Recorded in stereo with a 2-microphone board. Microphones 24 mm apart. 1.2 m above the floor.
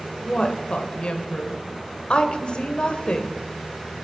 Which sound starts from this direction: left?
A woman speaking, at 0.2 s.